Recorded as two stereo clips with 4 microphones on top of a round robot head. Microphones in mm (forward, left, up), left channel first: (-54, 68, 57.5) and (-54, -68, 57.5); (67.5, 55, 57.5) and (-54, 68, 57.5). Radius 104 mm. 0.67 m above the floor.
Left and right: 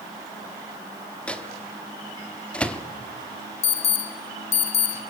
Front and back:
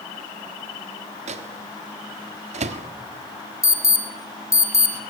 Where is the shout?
I don't hear a shout.